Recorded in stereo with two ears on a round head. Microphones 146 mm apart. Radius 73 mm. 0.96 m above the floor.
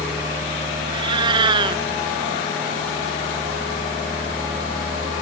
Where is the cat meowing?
30° right (ahead or behind).